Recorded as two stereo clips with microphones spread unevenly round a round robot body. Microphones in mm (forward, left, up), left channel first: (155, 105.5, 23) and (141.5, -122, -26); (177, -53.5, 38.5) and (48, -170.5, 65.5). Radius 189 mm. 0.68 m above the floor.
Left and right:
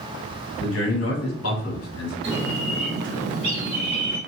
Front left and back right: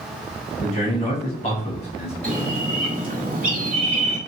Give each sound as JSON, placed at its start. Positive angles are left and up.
{"t": 0.6, "sound": "a man speaking", "azimuth_deg": 85, "distance_m": 1.5}
{"t": 2.2, "sound": "a bird", "azimuth_deg": -110, "distance_m": 1.7}